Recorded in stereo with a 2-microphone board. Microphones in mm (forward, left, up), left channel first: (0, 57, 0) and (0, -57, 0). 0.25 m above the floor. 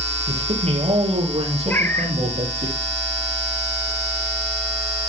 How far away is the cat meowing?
About 1.8 m.